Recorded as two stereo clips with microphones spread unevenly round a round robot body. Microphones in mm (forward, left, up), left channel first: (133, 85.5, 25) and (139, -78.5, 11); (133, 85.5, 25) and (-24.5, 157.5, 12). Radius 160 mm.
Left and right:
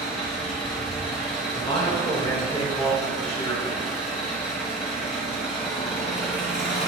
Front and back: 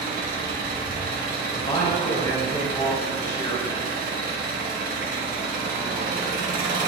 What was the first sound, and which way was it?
An engine running, 155° left.